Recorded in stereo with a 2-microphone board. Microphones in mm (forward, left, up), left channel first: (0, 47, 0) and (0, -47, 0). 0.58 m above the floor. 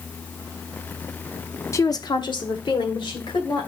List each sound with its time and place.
1.7 s a woman speaking: 35° left (ahead or behind), 0.7 m; by 3.7 s 60° left (ahead or behind), 2.5 m